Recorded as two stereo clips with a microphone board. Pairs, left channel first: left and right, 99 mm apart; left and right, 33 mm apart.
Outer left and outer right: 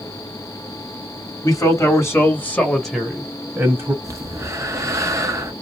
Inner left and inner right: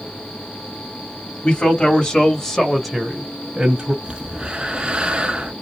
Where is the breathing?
35° right (ahead or behind), 0.8 m.